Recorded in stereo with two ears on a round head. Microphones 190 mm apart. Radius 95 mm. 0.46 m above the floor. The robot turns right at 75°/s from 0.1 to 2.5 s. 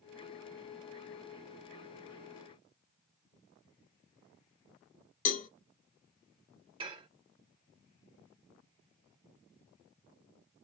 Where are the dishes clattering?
25° right (ahead or behind), 0.8 m.